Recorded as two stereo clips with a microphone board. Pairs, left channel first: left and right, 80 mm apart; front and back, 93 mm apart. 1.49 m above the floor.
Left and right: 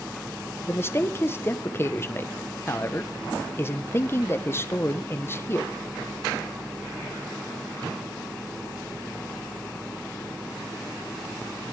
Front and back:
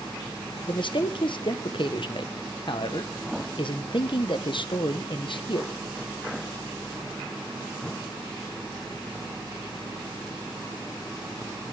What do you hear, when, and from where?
0.7 s a man speaking: 30° left, 1.3 m